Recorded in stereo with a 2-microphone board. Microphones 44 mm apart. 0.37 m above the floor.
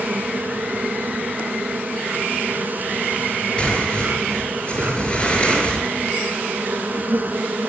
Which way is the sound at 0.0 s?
45° right (ahead or behind).